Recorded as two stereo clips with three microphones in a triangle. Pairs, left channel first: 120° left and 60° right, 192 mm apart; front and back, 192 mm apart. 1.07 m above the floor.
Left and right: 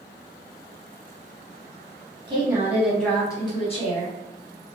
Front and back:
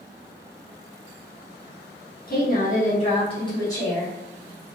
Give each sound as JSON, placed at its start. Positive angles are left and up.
{"t": 2.3, "sound": "a woman speaking", "azimuth_deg": 0, "distance_m": 1.0}